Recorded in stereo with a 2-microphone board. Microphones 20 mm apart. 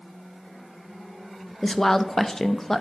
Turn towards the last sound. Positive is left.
turn(degrees=20)  # may be behind; listen again after turning